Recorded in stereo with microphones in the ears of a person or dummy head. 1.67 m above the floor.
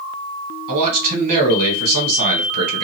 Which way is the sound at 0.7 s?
50° right (ahead or behind).